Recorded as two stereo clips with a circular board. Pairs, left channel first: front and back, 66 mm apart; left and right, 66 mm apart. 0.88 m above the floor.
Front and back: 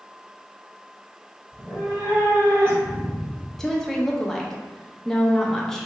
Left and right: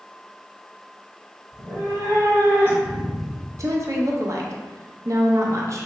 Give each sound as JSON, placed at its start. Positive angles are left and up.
{"t": 1.5, "sound": "a cat meowing", "azimuth_deg": -100, "distance_m": 1.3}
{"t": 3.6, "sound": "a woman speaking", "azimuth_deg": -80, "distance_m": 0.6}